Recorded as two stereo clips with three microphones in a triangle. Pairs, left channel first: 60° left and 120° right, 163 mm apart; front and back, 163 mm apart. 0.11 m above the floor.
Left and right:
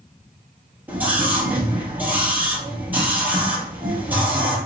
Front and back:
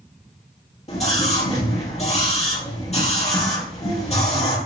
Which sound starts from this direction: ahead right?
A scream, at 0.9 s.